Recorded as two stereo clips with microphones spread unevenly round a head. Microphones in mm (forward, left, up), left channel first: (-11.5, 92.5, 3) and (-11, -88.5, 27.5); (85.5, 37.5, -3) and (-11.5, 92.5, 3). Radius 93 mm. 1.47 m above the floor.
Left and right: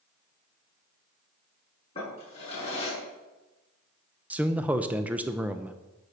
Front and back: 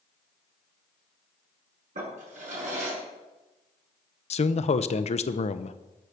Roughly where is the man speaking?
Ahead.